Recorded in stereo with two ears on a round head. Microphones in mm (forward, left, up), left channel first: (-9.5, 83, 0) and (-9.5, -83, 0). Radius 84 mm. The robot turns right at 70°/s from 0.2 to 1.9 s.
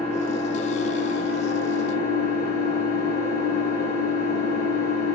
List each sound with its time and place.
0.0 s an engine running: 5° left, 1.3 m; by 5.1 s 125° left, 1.3 m